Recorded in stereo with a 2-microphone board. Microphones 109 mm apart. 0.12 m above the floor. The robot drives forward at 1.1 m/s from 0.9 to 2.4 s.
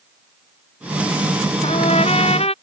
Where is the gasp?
No gasp in this recording.